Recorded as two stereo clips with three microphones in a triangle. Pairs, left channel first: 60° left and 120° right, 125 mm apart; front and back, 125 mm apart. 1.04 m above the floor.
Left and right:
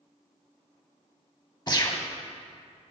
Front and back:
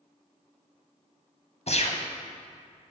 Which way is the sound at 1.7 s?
10° left.